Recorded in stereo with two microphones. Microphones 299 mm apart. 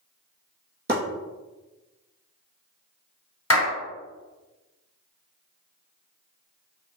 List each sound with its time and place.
0.9 s chopping: 30° right (ahead or behind), 1.6 m
3.5 s a clap: 50° left (ahead or behind), 1.5 m